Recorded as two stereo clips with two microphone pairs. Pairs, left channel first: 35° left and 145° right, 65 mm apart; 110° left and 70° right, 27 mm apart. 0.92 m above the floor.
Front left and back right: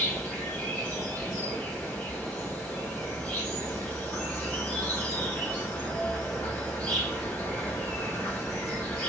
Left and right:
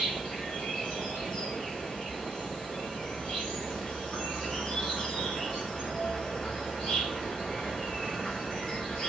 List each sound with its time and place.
0.0 s an insect: 100° left, 1.8 m